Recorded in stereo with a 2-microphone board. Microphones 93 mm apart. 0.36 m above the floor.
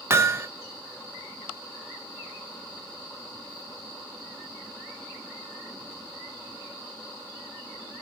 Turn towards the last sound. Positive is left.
turn(degrees=-30)  # may be behind; listen again after turning